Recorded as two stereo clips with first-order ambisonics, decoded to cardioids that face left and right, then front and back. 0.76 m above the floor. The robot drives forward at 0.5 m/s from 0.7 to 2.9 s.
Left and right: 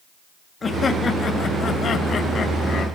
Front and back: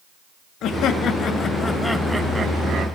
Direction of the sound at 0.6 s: 20° left.